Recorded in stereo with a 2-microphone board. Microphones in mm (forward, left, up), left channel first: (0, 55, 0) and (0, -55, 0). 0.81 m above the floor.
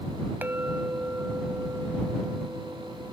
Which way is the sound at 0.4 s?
20° right (ahead or behind).